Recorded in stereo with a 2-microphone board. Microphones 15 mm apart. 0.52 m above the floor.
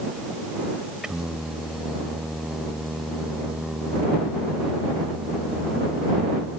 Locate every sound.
1.0 s singing: 45° right (ahead or behind)